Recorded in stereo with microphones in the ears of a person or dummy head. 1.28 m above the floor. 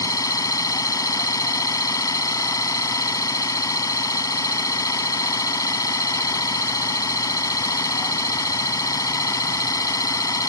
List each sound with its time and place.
0.0 s an engine running: 15° left (ahead or behind)